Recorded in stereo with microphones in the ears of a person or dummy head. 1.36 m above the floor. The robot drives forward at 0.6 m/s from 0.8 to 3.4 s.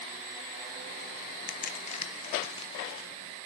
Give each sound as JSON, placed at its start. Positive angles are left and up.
{"t": 1.5, "sound": "a crack", "side_deg": 40, "distance_m": 0.8}